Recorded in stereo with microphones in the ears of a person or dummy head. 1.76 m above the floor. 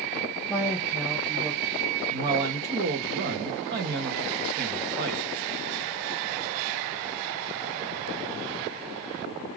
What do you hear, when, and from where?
0.5 s a woman speaking: 5° right (ahead or behind), 0.9 m
2.1 s a man speaking: 50° right (ahead or behind), 0.6 m